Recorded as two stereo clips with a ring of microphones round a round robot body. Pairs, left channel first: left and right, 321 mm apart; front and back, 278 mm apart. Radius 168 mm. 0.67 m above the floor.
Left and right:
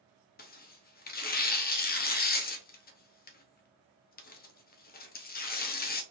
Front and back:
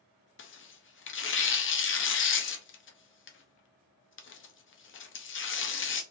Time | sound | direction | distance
0.4 | tearing paper | 35° left | 0.7 m